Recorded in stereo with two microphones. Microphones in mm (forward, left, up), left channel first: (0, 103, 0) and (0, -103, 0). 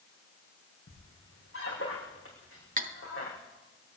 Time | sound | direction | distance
0.9 | a squeak | 85° left | 4 m
2.8 | cutlery clinking | 40° right (ahead or behind) | 0.7 m